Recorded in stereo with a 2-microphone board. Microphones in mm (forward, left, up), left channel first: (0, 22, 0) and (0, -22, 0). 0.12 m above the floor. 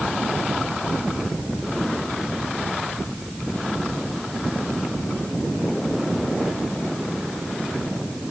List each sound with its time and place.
Only background noise.